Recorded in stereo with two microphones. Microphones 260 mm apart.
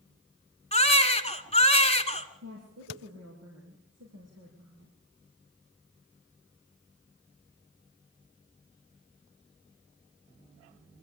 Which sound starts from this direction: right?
A woman speaking, at 2.4 s.